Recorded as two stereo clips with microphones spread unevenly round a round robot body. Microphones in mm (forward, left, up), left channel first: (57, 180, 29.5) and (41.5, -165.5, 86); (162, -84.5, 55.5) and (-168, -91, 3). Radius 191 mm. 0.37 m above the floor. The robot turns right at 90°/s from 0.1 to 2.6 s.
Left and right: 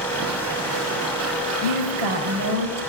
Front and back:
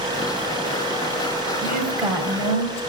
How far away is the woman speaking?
About 1.8 m.